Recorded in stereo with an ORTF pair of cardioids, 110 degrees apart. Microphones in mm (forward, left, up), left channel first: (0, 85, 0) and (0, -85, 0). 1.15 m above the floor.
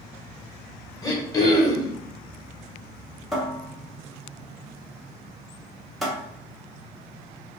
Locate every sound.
1.0 s throat clearing: 20° left, 0.9 m
3.3 s a cupboard door: straight ahead, 0.8 m